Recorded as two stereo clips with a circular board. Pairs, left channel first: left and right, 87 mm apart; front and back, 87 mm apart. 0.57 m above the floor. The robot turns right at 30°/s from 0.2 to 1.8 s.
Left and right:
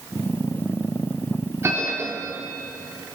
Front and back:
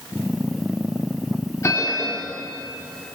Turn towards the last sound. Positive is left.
turn(degrees=-35)